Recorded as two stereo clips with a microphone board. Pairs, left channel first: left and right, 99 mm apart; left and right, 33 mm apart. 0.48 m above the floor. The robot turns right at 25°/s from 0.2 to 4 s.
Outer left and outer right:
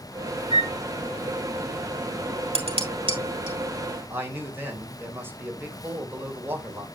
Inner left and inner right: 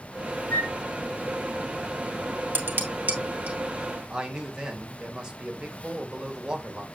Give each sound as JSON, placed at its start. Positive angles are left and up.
{"t": 0.5, "sound": "a flute", "side_deg": 75, "distance_m": 4.5}
{"t": 2.5, "sound": "dishes clattering", "side_deg": -70, "distance_m": 1.9}
{"t": 4.1, "sound": "a man speaking", "side_deg": -20, "distance_m": 2.5}